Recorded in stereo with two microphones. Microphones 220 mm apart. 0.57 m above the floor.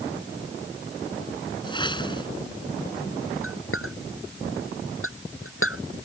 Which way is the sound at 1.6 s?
20° left (ahead or behind).